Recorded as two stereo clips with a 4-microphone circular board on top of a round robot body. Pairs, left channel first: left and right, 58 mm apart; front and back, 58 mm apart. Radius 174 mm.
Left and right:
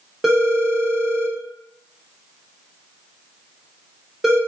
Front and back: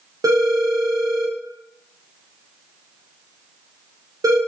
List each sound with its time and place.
0.2 s a phone ringing: 170° right, 0.9 m